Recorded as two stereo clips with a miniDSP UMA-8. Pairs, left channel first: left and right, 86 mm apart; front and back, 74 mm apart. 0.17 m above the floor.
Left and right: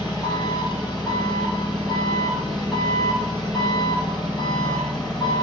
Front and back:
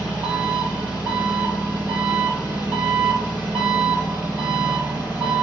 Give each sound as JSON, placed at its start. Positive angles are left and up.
{"t": 0.0, "sound": "an engine running", "azimuth_deg": 115, "distance_m": 3.0}